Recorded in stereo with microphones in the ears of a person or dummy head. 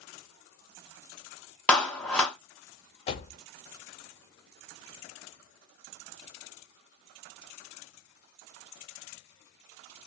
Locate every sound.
1.7 s a clap: 5° left (ahead or behind), 0.5 m
3.1 s a door slam: 35° left (ahead or behind), 0.6 m